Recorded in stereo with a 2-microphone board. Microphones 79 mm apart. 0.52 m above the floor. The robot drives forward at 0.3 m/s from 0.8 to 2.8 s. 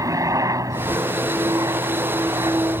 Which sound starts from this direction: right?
A helicopter, at 0.0 s.